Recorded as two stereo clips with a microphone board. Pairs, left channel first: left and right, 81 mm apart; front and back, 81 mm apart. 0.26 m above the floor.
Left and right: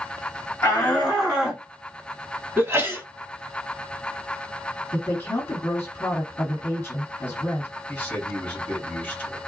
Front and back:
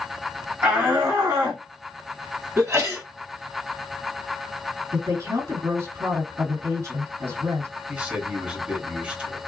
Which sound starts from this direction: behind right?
A sneeze, at 2.6 s.